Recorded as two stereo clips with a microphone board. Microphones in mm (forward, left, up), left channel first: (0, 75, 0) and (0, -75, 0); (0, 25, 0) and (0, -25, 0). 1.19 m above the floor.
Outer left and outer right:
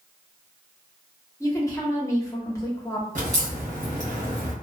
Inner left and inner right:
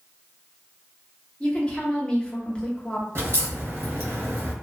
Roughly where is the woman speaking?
Left.